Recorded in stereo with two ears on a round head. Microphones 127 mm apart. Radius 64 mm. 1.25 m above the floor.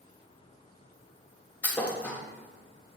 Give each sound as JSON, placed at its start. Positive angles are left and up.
{"t": 1.6, "sound": "a thud", "side_deg": 10, "distance_m": 0.6}